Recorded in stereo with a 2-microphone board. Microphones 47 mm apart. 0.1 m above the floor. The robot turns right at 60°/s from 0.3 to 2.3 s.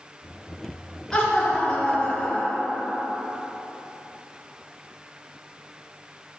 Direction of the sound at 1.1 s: 10° left (ahead or behind).